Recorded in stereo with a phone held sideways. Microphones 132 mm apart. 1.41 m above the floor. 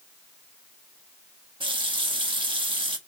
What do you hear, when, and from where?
1.6 s a running tap: 40° right (ahead or behind), 0.8 m